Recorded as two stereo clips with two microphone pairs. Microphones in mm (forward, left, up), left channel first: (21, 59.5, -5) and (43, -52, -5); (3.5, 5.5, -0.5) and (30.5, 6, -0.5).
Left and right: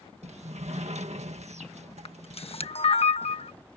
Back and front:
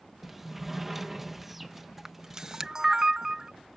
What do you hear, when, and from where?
0.2 s a sliding door: 80° right
2.0 s a camera shutter: 70° left